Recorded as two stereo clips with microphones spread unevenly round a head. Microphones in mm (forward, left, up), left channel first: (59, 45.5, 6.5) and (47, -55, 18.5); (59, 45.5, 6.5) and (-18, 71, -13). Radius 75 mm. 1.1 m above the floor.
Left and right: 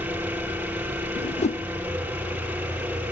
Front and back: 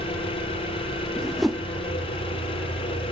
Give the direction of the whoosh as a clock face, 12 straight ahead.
10 o'clock.